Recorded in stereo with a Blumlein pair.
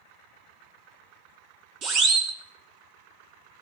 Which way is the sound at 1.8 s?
35° right.